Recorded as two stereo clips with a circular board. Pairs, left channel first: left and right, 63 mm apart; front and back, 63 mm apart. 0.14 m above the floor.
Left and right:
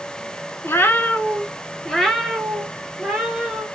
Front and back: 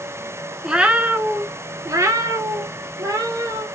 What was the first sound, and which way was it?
A cat meowing, 105° left.